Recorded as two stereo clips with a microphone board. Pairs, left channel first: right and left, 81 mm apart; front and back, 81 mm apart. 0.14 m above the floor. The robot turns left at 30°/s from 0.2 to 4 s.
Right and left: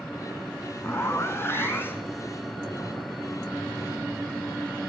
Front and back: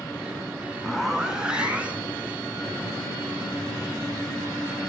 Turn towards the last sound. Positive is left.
turn(degrees=175)